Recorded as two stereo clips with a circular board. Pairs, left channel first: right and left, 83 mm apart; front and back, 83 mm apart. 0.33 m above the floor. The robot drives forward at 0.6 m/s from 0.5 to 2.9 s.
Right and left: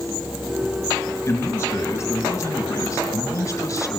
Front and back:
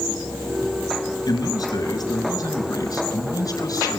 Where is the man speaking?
30° right, 6 m; by 4.0 s 35° right, 5 m.